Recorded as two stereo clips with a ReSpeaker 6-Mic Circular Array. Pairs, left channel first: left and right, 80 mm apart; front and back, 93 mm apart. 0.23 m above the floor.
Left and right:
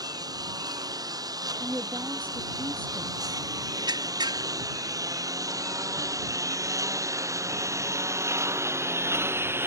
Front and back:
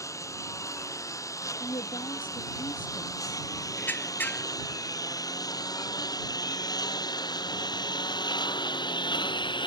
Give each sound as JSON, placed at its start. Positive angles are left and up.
{"t": 0.0, "sound": "a lawn mower", "azimuth_deg": -55}
{"t": 1.6, "sound": "a woman speaking", "azimuth_deg": -25}
{"t": 3.8, "sound": "a squeak", "azimuth_deg": -70}